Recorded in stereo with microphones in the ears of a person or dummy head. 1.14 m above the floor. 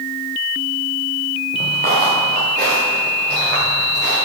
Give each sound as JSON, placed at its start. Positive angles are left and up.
{"t": 1.5, "sound": "footsteps", "side_deg": -30, "distance_m": 4.5}